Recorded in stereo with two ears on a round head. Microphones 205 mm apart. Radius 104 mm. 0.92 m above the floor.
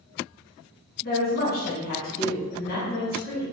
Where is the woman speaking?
40° left (ahead or behind), 1.0 m.